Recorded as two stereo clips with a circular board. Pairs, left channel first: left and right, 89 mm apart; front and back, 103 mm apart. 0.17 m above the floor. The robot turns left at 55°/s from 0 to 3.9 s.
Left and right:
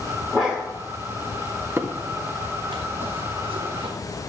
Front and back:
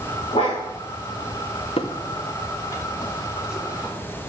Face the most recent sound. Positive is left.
turn(degrees=-115)